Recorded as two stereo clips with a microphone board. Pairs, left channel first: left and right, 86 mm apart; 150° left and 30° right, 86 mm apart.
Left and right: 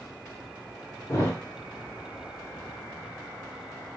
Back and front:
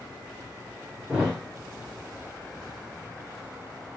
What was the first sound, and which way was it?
A thud, 50° left.